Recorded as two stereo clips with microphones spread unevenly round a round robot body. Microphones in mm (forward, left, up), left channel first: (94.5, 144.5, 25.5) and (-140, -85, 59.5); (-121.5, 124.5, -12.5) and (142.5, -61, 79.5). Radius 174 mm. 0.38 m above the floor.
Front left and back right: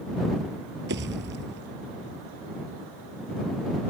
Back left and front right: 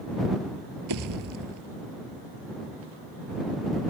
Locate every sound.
0.9 s a pop: 75° right